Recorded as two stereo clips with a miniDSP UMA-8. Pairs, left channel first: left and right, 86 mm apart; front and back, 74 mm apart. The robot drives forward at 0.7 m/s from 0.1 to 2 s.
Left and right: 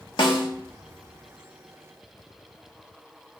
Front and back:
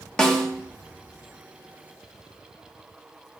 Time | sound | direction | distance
0.2 | a snare drum | 80° left | 1.5 m